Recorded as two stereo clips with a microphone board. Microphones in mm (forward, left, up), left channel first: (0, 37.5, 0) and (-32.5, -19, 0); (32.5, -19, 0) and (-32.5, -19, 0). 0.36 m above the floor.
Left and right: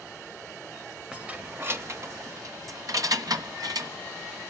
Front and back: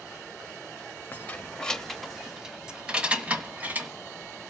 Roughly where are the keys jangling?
Ahead right.